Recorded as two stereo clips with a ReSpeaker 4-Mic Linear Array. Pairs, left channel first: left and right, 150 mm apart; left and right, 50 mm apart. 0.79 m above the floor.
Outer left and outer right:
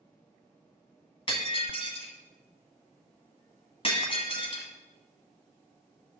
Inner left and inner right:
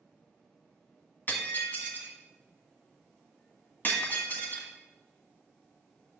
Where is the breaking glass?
35° left (ahead or behind), 2.0 m.